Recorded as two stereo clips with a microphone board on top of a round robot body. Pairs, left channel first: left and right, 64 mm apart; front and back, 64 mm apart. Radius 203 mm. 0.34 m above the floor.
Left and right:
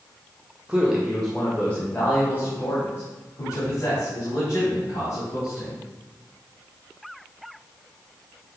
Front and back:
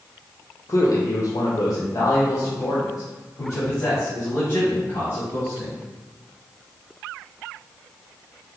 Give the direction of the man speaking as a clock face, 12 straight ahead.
1 o'clock.